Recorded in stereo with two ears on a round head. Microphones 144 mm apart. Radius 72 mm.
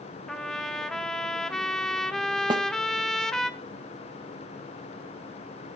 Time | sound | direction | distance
0.3 | a trumpet | 5° left (ahead or behind) | 0.6 m
2.5 | a snare drum | 25° right (ahead or behind) | 0.6 m